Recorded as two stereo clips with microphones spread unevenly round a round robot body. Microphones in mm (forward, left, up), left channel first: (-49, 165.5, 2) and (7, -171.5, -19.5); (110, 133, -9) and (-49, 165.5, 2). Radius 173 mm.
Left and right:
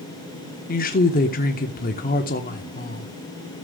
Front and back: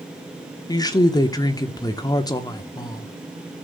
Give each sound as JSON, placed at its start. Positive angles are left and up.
{"t": 0.7, "sound": "a woman speaking", "azimuth_deg": 40, "distance_m": 1.1}